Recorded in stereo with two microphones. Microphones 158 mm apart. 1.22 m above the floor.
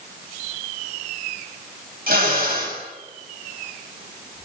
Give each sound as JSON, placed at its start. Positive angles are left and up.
{"t": 2.1, "sound": "a drill", "side_deg": -70, "distance_m": 7.5}